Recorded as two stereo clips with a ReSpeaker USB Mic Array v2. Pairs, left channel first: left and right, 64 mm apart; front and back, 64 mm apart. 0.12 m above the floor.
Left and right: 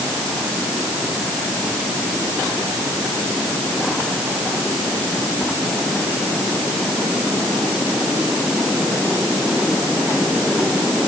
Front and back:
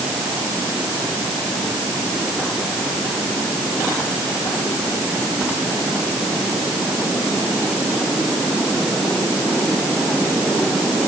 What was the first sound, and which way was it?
Only background noise.